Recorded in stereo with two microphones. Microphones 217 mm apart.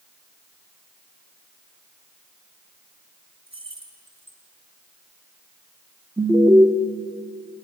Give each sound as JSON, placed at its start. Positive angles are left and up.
{"t": 3.5, "sound": "keys jangling", "side_deg": -25, "distance_m": 3.5}
{"t": 6.2, "sound": "an alarm", "side_deg": -15, "distance_m": 1.5}